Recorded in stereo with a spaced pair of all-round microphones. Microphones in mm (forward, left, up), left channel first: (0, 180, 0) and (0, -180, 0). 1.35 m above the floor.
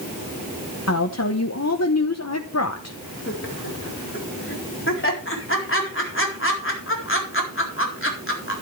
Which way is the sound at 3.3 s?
35° left (ahead or behind).